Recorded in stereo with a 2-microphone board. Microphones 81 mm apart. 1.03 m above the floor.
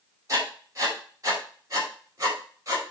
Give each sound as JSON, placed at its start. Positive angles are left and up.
{"t": 0.3, "sound": "writing", "side_deg": -40, "distance_m": 5.0}